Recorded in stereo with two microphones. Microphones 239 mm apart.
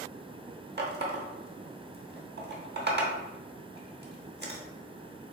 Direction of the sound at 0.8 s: 45° right (ahead or behind).